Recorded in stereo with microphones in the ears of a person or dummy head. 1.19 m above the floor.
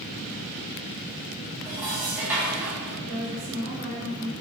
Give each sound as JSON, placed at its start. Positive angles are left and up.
{"t": 1.6, "sound": "dishes clattering", "side_deg": -10, "distance_m": 1.0}
{"t": 3.0, "sound": "a woman speaking", "side_deg": -55, "distance_m": 1.2}